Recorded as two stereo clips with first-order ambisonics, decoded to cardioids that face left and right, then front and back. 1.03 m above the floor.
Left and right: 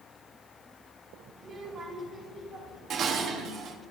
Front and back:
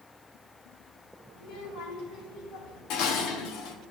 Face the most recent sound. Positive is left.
turn(degrees=-35)